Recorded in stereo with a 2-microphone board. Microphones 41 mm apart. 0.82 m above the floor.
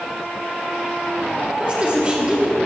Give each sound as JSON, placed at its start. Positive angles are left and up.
{"t": 1.6, "sound": "a woman speaking", "side_deg": -30, "distance_m": 1.3}